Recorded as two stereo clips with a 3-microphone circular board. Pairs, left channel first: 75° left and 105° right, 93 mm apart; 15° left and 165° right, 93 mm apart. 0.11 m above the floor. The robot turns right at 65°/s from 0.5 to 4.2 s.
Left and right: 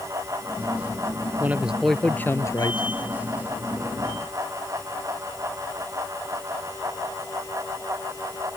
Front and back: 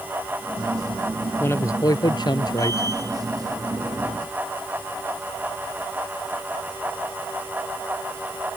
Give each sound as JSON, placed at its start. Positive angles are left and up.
{"t": 1.4, "sound": "a man speaking", "azimuth_deg": -40}